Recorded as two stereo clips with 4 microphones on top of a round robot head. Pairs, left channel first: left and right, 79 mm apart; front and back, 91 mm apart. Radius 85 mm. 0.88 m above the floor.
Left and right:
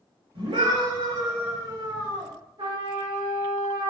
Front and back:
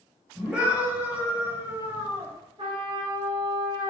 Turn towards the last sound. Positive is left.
turn(degrees=-135)